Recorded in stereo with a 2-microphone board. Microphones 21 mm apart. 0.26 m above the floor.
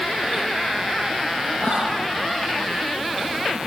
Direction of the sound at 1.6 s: 65° left (ahead or behind).